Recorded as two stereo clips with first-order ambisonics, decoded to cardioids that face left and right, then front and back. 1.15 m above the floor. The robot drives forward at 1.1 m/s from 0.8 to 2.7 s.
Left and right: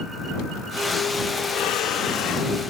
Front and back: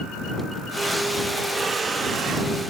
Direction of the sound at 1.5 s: 110° left.